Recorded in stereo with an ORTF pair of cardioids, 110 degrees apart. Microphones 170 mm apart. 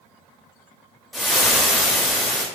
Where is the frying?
Straight ahead, 0.6 m.